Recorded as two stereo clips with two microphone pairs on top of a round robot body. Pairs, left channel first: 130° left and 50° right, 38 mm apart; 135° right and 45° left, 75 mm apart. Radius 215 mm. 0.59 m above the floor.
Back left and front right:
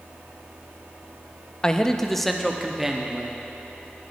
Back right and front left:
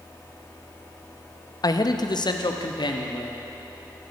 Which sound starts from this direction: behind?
A man speaking, at 1.6 s.